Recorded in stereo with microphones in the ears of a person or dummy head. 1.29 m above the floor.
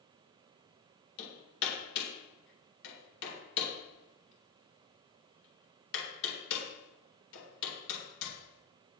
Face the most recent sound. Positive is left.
turn(degrees=70)  # may be behind; listen again after turning